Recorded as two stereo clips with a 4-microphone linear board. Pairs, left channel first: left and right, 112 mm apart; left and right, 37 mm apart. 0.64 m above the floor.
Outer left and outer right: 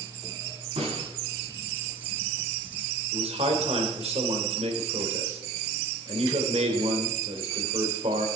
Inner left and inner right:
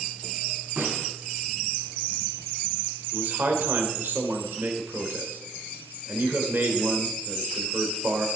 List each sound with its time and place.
0.8 s a snare drum: 75° right (ahead or behind), 4.5 m
3.1 s a man speaking: 65° right (ahead or behind), 2.5 m